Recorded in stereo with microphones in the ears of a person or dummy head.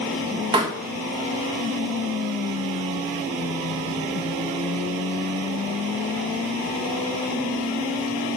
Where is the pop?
20° right (ahead or behind), 1.4 m.